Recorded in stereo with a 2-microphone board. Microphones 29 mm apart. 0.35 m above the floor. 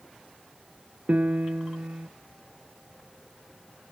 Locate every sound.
1.1 s a piano: 60° right (ahead or behind), 0.9 m